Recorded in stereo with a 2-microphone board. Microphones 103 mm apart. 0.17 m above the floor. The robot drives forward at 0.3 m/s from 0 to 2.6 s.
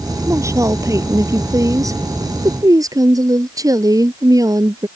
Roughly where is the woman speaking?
Right.